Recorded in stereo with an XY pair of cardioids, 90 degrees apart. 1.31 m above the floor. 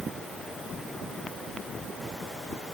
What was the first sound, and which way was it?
Only background noise.